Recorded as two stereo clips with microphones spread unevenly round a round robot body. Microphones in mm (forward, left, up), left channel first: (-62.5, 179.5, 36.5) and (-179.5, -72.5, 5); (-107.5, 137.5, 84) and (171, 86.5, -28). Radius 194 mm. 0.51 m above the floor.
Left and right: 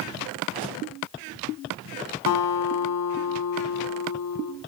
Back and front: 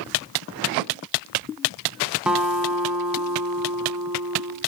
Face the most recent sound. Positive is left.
turn(degrees=85)